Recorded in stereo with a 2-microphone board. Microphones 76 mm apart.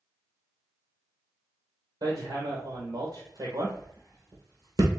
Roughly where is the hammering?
Right.